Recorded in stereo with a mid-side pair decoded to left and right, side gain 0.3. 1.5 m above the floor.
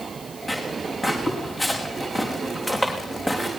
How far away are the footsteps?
About 5 m.